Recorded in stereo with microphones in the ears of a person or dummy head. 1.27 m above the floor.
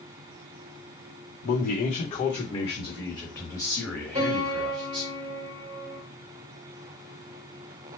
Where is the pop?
I don't hear a pop.